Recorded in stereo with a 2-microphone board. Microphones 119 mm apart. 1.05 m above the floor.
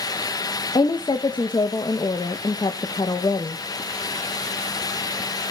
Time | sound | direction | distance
0.8 | a woman speaking | 40° left (ahead or behind) | 0.8 m